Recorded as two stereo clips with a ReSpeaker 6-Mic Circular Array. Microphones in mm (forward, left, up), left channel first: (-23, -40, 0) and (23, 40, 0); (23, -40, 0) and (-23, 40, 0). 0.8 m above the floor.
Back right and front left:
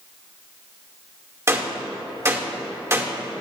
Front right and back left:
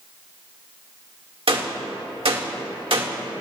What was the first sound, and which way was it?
A gunshot, 120° left.